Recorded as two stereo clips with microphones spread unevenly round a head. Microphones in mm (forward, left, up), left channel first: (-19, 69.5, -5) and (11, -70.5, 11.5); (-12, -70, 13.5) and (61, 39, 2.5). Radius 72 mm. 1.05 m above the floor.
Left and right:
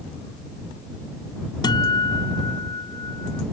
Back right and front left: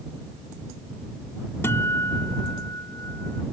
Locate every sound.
1.6 s a guitar: 165° left